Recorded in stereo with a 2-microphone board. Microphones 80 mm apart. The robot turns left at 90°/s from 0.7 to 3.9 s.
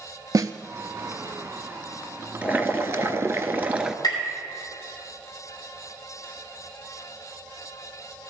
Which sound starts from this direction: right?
A snare drum, at 0.3 s.